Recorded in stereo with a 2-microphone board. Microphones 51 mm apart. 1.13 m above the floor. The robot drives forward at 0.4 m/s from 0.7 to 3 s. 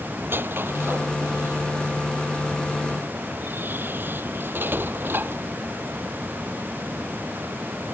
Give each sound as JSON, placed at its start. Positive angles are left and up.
{"t": 0.2, "sound": "a squeak", "side_deg": -45}